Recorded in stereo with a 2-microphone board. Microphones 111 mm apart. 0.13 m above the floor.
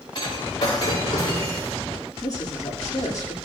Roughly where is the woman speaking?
Left.